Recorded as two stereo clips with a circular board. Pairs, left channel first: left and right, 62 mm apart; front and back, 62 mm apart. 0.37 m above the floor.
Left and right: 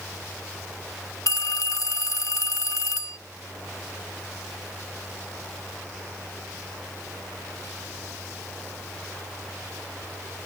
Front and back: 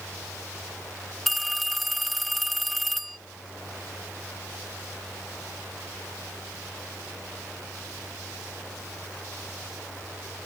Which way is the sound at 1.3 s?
90° left.